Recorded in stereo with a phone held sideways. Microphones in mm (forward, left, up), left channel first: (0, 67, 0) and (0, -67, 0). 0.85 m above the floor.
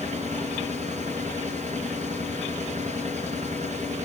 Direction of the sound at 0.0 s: 60° right (ahead or behind).